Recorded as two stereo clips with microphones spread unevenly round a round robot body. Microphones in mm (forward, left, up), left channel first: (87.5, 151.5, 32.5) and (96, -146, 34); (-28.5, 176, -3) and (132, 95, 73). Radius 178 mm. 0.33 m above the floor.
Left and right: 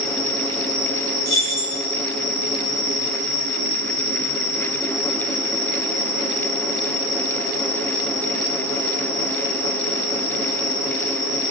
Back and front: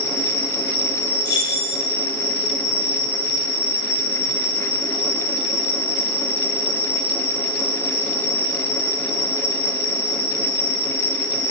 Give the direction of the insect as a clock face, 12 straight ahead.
6 o'clock.